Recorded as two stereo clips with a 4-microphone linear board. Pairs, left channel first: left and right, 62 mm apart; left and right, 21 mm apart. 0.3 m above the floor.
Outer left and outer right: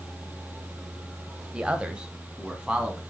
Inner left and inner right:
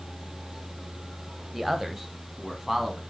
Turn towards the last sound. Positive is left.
turn(degrees=-15)  # may be behind; listen again after turning